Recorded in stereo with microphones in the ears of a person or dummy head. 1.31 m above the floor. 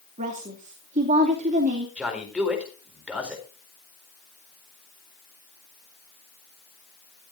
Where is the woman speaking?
40° right (ahead or behind), 2.5 m.